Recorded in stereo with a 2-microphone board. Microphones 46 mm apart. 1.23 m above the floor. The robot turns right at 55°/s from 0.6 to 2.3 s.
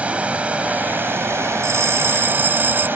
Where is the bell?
90° right; by 2.9 s 55° right.